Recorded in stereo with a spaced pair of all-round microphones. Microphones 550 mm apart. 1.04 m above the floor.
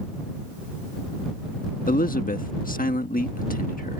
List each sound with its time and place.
1.9 s a man speaking: 15° left (ahead or behind)